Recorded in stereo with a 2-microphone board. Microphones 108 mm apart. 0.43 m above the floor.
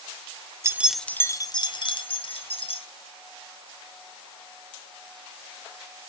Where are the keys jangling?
25° right (ahead or behind), 0.7 m; by 2.9 s 65° left (ahead or behind), 2.5 m.